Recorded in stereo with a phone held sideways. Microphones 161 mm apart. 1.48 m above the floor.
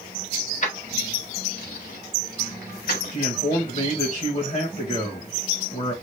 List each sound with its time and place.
0.6 s keys jangling: 50° left (ahead or behind), 1.2 m; by 3.2 s 75° left (ahead or behind), 2.5 m
3.1 s a man speaking: 50° left (ahead or behind), 1.5 m